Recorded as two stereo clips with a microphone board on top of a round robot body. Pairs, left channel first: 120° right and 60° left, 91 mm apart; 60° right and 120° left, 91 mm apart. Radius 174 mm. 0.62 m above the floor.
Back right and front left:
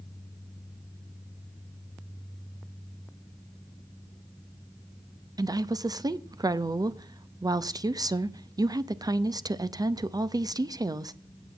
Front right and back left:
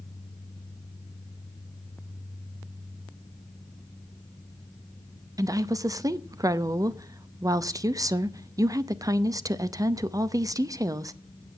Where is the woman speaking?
85° left, 0.9 m.